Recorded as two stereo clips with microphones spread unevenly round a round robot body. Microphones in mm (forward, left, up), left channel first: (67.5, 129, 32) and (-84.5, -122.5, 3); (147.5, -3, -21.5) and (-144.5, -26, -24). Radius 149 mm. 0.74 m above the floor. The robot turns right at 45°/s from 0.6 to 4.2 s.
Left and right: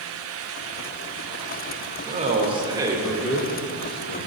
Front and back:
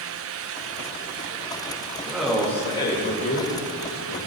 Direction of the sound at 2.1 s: 95° right.